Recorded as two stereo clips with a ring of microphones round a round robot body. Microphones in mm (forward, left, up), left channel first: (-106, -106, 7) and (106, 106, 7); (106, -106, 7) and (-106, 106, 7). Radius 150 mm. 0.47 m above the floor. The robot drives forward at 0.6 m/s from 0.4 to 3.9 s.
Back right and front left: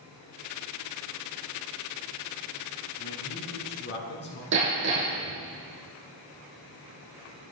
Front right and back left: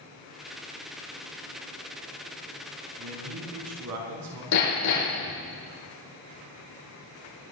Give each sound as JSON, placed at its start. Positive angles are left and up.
{"t": 3.0, "sound": "a man speaking", "azimuth_deg": 170, "distance_m": 3.5}
{"t": 4.5, "sound": "hammering", "azimuth_deg": -10, "distance_m": 6.5}